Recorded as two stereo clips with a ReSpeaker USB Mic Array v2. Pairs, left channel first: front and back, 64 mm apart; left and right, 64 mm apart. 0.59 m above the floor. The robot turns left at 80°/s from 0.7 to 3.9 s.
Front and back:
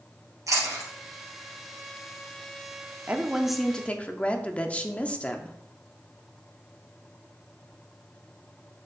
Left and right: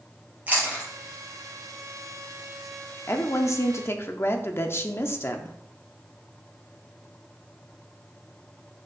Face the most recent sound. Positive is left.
turn(degrees=60)